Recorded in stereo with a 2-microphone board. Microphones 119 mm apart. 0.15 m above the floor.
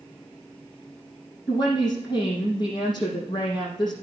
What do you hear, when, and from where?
1.5 s a woman speaking: 40° left (ahead or behind), 4.5 m